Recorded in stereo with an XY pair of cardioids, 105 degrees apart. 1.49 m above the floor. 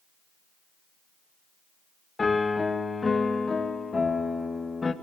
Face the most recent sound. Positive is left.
turn(degrees=25)